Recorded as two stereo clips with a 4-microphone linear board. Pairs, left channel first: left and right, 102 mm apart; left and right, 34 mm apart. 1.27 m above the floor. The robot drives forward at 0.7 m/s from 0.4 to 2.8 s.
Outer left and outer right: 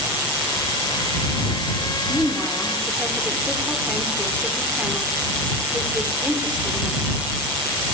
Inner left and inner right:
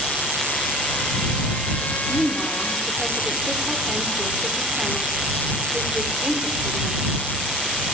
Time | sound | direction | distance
2.1 | a woman speaking | 15° right (ahead or behind) | 3 m